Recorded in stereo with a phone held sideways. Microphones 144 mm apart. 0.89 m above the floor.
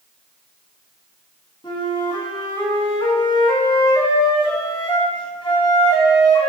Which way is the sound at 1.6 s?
35° left (ahead or behind).